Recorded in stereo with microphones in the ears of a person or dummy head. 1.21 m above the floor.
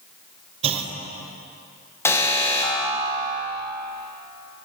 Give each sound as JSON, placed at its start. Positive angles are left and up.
{"t": 0.6, "sound": "a clunk", "side_deg": -35, "distance_m": 0.7}
{"t": 2.0, "sound": "an alarm", "side_deg": 15, "distance_m": 0.9}